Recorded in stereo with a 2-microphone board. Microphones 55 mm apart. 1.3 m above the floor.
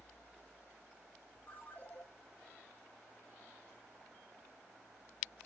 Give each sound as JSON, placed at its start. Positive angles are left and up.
{"t": 1.5, "sound": "a ringtone", "side_deg": 30, "distance_m": 2.5}